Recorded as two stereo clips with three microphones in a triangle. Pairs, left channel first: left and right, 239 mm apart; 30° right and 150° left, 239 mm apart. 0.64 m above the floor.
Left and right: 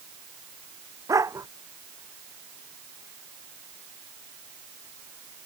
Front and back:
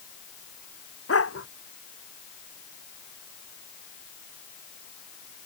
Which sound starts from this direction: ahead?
A dog barking, at 1.1 s.